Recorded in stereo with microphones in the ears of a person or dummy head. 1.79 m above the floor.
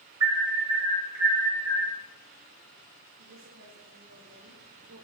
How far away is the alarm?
About 5 m.